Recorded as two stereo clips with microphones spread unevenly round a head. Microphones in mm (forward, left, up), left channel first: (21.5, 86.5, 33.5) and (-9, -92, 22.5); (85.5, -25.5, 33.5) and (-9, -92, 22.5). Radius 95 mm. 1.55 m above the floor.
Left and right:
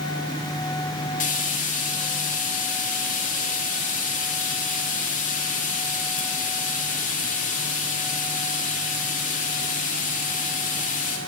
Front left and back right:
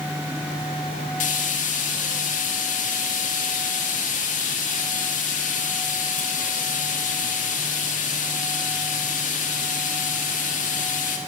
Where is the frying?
30° left, 2.5 m.